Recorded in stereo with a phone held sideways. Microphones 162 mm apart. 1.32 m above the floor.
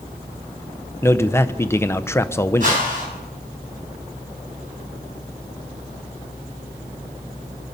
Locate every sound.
1.0 s a man speaking: 15° left (ahead or behind), 0.6 m
2.6 s a whoosh: 55° right (ahead or behind), 6.5 m